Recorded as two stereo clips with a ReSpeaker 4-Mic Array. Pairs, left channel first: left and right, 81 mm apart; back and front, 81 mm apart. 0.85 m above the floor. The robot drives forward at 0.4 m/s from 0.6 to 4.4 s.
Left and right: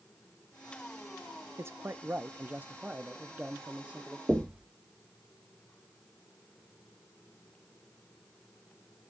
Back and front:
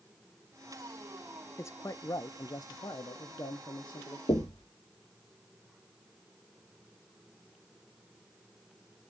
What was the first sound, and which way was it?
A man speaking, 135° right.